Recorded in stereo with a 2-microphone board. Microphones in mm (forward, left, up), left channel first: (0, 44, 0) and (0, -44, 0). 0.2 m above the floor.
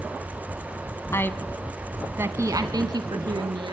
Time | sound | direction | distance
1.1 | a woman speaking | 30° left (ahead or behind) | 1.3 m